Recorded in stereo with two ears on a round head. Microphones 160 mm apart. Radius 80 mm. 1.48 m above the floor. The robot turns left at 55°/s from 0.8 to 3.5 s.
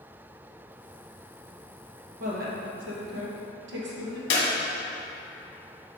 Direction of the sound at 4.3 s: 60° left (ahead or behind).